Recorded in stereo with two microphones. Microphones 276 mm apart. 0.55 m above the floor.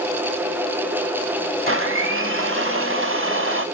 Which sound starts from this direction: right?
A blender, at 1.7 s.